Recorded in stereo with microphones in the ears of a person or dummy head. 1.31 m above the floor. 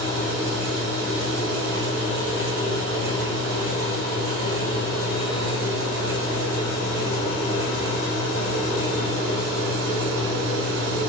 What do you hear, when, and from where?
0.0 s a fan: 65° right (ahead or behind), 0.9 m